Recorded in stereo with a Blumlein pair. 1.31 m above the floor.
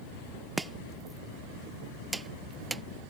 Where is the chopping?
10° right.